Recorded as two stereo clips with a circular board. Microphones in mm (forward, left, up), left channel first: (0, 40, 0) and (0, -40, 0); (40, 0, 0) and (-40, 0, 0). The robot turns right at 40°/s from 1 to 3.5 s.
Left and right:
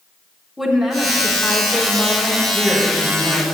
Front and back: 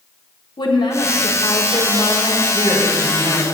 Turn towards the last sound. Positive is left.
turn(degrees=-120)